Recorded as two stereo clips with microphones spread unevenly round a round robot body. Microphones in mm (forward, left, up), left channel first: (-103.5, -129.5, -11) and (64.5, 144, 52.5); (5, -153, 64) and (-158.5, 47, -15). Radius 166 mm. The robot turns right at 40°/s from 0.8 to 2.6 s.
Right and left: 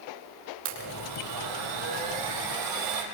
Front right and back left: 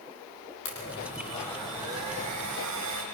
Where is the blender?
5° left, 5 m; by 3.0 s 75° left, 5 m.